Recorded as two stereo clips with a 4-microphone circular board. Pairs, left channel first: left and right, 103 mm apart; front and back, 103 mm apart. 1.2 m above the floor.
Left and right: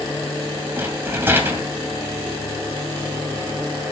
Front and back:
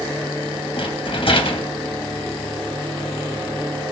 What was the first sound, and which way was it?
A rattle, 20° right.